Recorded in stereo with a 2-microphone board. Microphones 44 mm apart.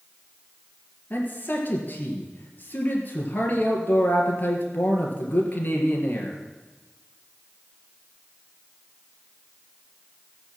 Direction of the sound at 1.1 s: 40° left (ahead or behind).